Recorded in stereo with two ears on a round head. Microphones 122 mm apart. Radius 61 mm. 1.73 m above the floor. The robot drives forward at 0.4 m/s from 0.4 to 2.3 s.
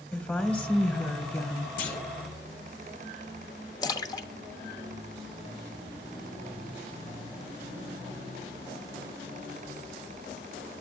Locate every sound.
0.1 s a woman speaking: 15° left (ahead or behind), 1.2 m; by 1.7 s 25° left (ahead or behind), 0.7 m
1.8 s a clunk: 70° left (ahead or behind), 1.9 m; by 2.2 s 65° left (ahead or behind), 1.9 m
3.8 s a splash: 30° left (ahead or behind), 0.7 m